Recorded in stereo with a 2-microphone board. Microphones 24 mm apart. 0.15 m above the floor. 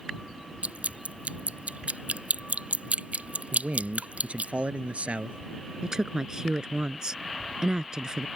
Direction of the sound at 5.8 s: 30° right (ahead or behind).